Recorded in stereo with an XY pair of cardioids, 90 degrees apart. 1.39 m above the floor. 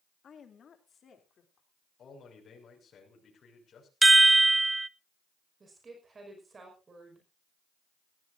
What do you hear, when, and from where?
0.2 s a woman speaking: 60° left, 2.5 m
2.0 s a man speaking: 60° left, 6.5 m
4.0 s a chime: 20° right, 0.5 m
5.6 s a woman speaking: 35° right, 5.5 m